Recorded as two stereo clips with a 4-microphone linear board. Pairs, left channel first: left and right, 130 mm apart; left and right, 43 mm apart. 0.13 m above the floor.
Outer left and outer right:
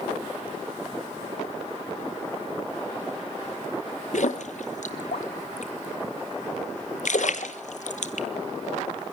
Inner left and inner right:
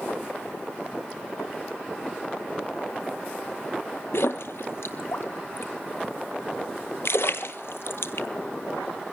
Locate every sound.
4.1 s a splash: 70° left (ahead or behind), 1.6 m